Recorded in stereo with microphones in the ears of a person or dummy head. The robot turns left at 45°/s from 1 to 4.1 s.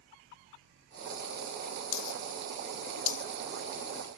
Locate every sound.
1.9 s a dropped coin: 60° left (ahead or behind), 1.0 m; by 4.2 s 5° left (ahead or behind), 1.0 m